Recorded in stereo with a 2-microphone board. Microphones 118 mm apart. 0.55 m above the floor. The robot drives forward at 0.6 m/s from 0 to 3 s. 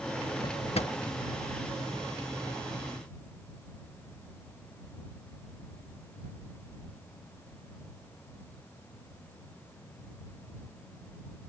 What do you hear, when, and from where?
0.4 s a drawer: 45° left (ahead or behind); by 0.9 s 65° left (ahead or behind)